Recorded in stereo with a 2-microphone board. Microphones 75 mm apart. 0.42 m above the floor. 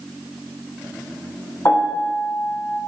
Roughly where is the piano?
Left.